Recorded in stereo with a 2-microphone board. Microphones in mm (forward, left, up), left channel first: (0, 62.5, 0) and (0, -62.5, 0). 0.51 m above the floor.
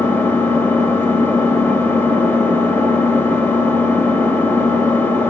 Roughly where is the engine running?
Centre.